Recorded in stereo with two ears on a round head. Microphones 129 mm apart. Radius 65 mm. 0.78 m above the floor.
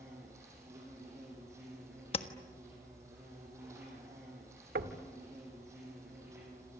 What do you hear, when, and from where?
0.0 s an insect: 20° right (ahead or behind), 8 m
2.1 s tapping: 45° left (ahead or behind), 1.4 m
4.8 s knocking: 80° right, 1.6 m